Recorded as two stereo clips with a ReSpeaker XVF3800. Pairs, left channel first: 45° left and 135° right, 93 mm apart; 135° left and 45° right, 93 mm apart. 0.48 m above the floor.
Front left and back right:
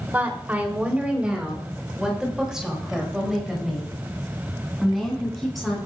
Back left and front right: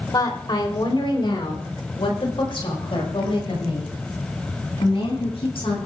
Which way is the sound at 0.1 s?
160° left.